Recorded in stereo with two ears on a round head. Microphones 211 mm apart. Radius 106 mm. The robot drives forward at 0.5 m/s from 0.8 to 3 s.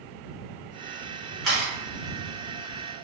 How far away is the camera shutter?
About 1.8 m.